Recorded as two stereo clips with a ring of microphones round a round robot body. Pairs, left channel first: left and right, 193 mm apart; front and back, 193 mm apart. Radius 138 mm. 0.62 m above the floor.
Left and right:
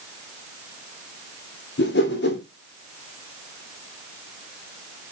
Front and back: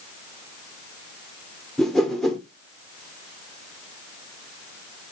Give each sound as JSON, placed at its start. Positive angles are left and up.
{"t": 1.8, "sound": "a whoosh", "azimuth_deg": 85, "distance_m": 2.5}